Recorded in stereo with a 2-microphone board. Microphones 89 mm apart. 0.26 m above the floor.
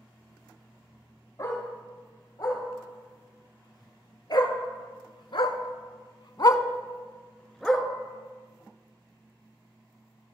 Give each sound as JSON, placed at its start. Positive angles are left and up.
{"t": 1.4, "sound": "a dog barking", "side_deg": 40, "distance_m": 2.5}